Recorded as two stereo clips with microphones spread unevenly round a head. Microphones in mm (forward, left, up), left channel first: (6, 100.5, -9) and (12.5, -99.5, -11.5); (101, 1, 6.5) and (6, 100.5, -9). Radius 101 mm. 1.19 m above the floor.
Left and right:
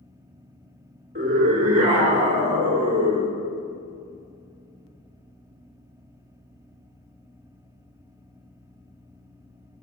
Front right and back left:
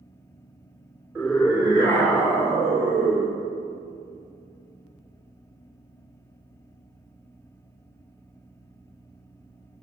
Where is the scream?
145° right, 4 m; by 3.4 s 160° right, 3 m.